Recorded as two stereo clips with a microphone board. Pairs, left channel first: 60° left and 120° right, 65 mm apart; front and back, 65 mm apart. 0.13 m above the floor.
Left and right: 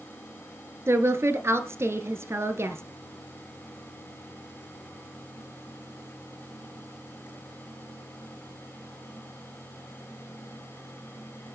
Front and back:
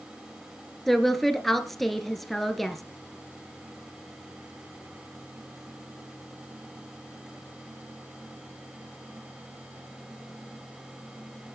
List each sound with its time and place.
0.9 s a woman speaking: 85° right, 1.8 m